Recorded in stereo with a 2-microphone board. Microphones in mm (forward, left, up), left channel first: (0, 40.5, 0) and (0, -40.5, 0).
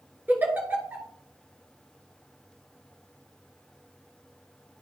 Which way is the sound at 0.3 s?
25° right (ahead or behind).